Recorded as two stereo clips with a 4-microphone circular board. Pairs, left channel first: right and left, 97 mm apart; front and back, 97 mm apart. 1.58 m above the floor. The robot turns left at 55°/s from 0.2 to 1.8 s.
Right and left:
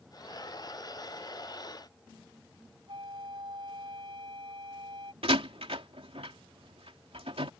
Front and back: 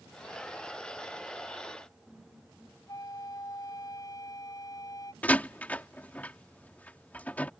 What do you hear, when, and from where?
2.9 s a flute: 55° left
5.2 s a door slam: 75° left